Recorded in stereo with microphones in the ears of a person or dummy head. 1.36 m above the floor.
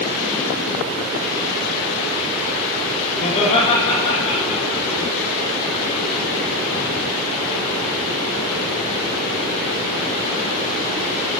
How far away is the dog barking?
No dog barking in this recording.